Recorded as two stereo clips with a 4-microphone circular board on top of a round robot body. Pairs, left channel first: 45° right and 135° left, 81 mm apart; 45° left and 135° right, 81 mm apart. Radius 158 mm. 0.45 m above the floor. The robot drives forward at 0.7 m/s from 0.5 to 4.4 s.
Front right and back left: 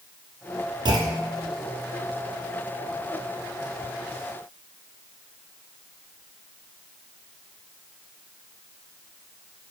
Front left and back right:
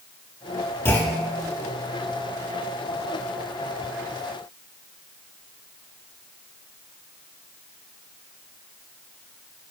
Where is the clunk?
105° left, 1.2 m; by 1.5 s 120° left, 1.4 m.